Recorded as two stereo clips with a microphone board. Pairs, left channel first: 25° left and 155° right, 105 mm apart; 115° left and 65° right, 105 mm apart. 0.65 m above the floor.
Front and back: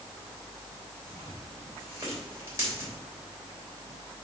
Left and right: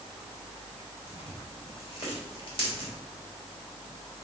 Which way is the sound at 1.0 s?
140° left.